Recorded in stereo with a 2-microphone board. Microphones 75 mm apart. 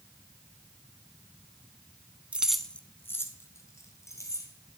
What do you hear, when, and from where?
2.3 s keys jangling: 15° right (ahead or behind), 0.7 m; by 4.5 s 40° left (ahead or behind), 2.5 m